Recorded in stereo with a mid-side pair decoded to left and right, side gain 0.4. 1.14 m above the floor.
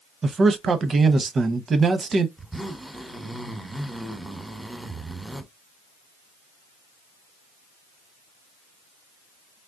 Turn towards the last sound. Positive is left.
turn(degrees=-5)